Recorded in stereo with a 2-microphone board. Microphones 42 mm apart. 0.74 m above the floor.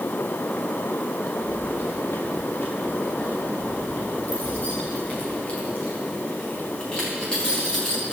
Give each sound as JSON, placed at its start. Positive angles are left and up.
{"t": 1.4, "sound": "keys jangling", "side_deg": 60, "distance_m": 3.5}